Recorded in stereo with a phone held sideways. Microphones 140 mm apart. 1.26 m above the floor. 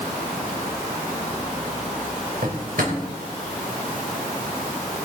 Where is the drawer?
80° right, 3 m.